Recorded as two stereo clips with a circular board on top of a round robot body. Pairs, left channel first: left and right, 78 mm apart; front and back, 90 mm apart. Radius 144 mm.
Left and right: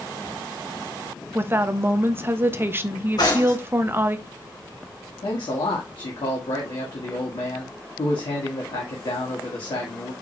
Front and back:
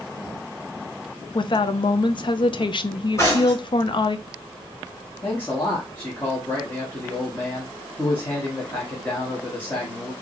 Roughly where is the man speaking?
Ahead left.